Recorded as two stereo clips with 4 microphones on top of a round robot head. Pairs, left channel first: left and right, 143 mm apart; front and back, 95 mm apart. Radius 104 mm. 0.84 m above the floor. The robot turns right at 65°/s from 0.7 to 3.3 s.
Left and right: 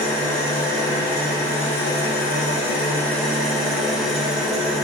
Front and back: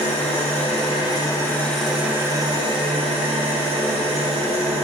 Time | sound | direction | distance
0.0 | an engine running | 10° left | 3 m